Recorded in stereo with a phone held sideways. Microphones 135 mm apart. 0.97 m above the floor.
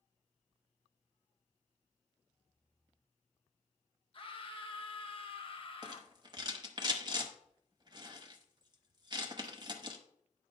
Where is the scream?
45° left (ahead or behind), 0.9 m.